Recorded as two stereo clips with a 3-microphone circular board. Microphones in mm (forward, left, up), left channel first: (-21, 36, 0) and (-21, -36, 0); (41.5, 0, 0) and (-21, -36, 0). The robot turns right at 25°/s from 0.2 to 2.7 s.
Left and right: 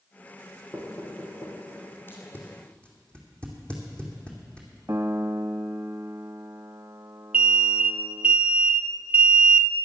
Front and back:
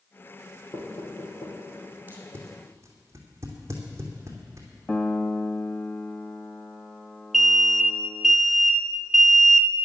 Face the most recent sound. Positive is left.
turn(degrees=-65)